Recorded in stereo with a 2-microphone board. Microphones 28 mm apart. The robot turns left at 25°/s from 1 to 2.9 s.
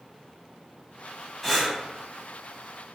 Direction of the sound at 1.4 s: 5° left (ahead or behind).